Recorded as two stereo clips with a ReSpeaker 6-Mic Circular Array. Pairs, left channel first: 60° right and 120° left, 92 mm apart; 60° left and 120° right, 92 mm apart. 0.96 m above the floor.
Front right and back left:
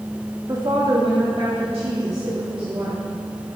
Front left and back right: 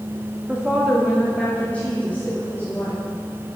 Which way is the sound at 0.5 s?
165° left.